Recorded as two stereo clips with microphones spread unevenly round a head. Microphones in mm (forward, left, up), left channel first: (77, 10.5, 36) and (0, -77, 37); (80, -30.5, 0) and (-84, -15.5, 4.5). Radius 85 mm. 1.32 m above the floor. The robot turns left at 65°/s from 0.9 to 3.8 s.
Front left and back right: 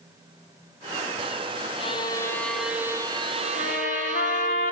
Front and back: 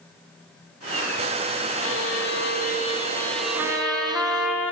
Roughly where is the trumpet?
Left.